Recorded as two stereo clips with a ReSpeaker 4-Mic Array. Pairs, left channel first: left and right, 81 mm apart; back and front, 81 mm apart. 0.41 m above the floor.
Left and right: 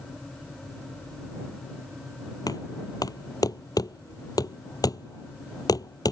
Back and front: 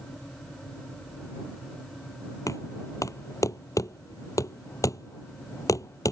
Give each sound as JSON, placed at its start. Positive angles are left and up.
{"t": 2.5, "sound": "knocking", "azimuth_deg": 130}